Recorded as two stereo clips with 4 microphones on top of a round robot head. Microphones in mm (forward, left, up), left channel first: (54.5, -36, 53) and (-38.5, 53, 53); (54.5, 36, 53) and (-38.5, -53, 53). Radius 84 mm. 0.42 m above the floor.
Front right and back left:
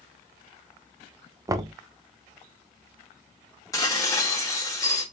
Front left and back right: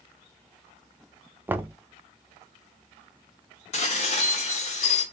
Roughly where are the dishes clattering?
Ahead.